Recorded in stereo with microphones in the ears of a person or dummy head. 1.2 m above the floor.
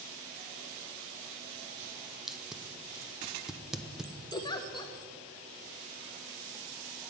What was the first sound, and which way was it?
Tape being pulled, 5° right (ahead or behind).